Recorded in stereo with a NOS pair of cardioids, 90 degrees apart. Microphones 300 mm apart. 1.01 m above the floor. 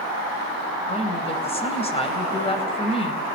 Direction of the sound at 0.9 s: 20° left.